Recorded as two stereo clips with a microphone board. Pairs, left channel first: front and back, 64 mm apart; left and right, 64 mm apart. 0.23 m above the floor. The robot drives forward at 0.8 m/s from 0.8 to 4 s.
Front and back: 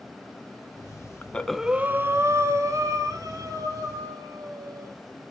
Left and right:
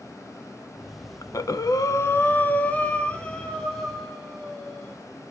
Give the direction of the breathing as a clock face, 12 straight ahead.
10 o'clock.